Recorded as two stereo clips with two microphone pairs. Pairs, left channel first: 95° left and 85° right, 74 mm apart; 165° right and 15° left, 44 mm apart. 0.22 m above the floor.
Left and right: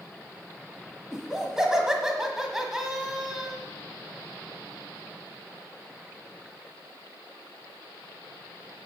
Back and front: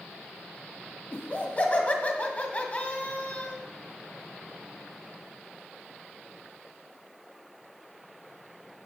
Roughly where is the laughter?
Behind.